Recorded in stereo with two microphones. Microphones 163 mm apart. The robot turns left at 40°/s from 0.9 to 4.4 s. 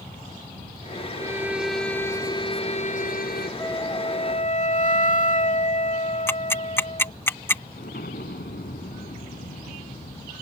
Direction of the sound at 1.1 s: 155° right.